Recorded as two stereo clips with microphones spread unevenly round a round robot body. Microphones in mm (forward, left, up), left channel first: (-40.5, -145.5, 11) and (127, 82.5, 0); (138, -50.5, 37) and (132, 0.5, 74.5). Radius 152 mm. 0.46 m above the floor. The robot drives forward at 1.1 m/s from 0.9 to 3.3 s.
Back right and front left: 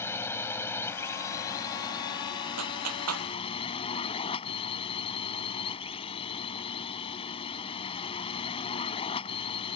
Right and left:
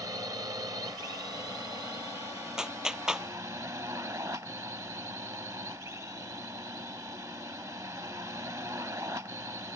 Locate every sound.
0.0 s a drone: 150° left; by 9.8 s 160° left
2.6 s a clap: 20° left